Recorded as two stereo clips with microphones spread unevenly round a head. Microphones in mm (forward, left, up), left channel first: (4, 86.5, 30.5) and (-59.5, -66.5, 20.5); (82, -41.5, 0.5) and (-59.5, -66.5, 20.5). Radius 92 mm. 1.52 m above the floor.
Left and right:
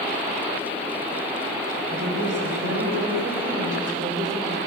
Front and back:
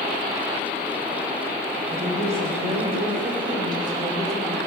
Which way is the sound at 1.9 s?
135° right.